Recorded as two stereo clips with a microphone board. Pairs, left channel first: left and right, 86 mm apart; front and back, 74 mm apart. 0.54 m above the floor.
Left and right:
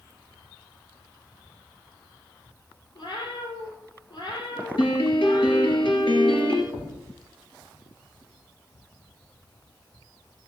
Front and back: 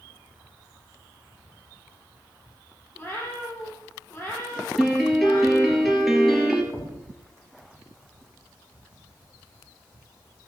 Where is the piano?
90° left, 2.5 m.